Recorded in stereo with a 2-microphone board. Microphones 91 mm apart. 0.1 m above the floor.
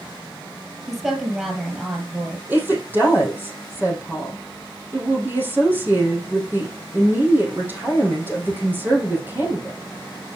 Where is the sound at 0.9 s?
10° right (ahead or behind), 1.7 m.